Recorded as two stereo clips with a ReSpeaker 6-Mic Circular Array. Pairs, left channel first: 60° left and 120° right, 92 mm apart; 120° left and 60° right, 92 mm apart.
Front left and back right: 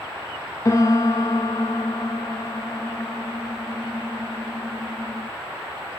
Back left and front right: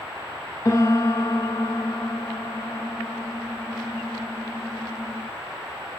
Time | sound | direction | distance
0.7 | a piano | 95° left | 0.6 m